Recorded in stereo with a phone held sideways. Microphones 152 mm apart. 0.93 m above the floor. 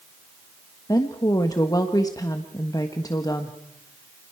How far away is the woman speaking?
About 1.4 m.